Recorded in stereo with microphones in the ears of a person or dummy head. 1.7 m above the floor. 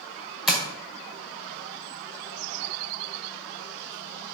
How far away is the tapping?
About 1.6 m.